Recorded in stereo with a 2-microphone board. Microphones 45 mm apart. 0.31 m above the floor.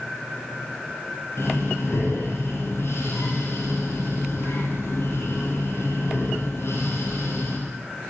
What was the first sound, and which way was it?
Breathing, 65° left (ahead or behind).